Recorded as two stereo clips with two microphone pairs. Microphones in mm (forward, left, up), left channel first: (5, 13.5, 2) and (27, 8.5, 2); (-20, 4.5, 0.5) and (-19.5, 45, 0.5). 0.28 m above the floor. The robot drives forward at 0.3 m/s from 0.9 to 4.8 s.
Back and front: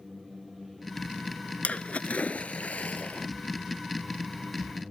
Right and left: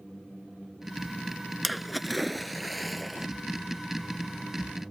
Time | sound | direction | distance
1.6 | a splash | 175° left | ?